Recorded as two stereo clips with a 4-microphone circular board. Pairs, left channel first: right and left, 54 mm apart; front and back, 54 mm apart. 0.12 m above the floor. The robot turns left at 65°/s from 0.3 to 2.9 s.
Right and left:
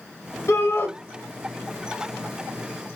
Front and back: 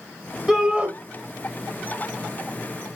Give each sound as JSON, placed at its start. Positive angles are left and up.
{"t": 0.5, "sound": "a shout", "azimuth_deg": -95, "distance_m": 1.9}